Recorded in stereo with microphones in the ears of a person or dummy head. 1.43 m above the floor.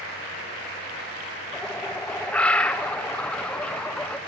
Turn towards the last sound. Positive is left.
turn(degrees=5)  # may be behind; listen again after turning